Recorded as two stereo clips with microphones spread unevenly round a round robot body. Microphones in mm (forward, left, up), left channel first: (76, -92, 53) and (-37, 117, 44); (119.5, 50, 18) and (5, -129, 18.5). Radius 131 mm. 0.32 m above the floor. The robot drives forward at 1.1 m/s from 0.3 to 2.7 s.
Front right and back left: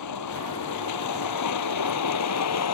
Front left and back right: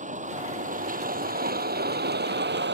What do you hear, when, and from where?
0.0 s a vehicle: 70° right; by 2.8 s 85° right